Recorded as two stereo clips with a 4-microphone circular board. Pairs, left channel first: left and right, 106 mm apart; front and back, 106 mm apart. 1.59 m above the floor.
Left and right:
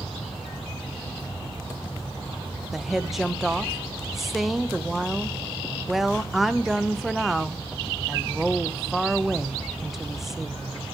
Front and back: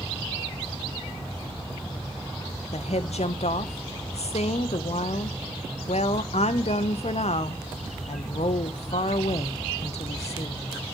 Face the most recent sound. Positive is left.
turn(degrees=-5)